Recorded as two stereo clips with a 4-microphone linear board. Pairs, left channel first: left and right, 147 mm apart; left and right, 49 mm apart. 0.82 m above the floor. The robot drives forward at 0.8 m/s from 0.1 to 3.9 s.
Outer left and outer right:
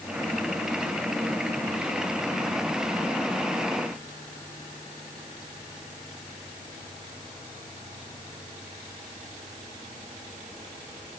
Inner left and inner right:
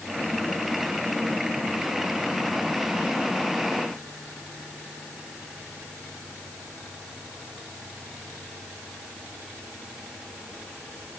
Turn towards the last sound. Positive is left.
No sound to turn to.